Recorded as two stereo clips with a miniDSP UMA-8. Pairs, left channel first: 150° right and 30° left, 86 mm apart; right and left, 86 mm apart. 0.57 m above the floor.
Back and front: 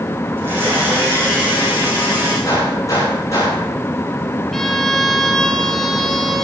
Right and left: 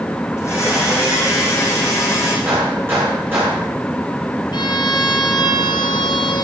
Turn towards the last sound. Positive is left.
turn(degrees=-65)